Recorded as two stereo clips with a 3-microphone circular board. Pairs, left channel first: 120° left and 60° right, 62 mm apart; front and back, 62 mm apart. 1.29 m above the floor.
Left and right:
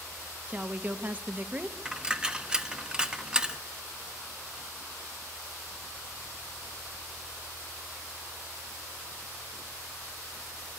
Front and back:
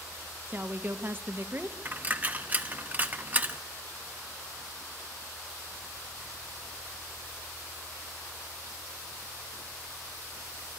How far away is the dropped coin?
About 0.7 m.